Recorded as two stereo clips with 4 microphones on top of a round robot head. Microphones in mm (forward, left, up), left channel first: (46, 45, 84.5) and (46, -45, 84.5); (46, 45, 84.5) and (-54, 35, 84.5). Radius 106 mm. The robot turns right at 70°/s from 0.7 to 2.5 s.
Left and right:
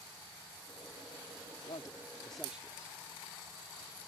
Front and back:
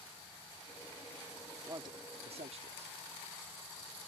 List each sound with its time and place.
1.7 s a man speaking: 130° left; by 3.0 s 170° right